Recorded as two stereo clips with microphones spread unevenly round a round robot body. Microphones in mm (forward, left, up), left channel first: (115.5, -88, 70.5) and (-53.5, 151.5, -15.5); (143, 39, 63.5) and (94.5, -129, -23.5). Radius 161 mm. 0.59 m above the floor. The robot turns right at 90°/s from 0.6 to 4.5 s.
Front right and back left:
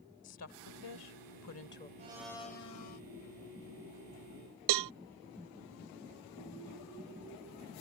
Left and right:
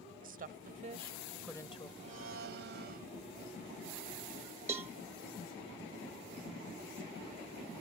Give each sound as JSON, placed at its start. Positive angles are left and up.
{"t": 0.2, "sound": "a woman speaking", "azimuth_deg": -100}
{"t": 2.0, "sound": "a blender", "azimuth_deg": -170}
{"t": 4.7, "sound": "a cowbell", "azimuth_deg": 165}